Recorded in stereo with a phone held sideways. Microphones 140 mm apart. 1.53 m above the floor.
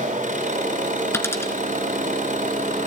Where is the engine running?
70° right (ahead or behind), 7.5 m.